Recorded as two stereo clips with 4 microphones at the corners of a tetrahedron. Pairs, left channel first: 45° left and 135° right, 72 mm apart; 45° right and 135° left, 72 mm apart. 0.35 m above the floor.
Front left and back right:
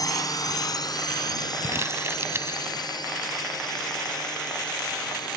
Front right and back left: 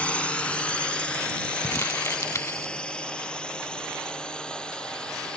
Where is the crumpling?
90° right.